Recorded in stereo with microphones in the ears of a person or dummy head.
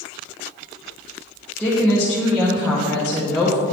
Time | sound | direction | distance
1.6 | a woman speaking | centre (ahead or behind) | 1.0 m